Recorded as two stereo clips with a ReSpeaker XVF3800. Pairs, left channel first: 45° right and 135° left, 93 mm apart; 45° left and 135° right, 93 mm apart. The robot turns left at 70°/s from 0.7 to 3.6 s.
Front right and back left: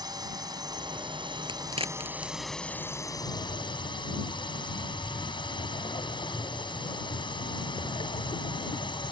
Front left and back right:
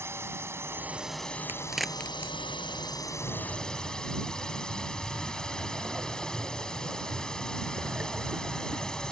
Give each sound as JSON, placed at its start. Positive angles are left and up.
{"t": 0.0, "sound": "a drone", "azimuth_deg": 165}
{"t": 1.5, "sound": "a crack", "azimuth_deg": 160}
{"t": 3.2, "sound": "breathing", "azimuth_deg": -35}